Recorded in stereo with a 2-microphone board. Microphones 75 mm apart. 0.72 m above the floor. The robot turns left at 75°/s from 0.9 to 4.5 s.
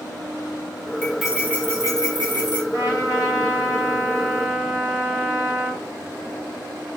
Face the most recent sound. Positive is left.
turn(degrees=10)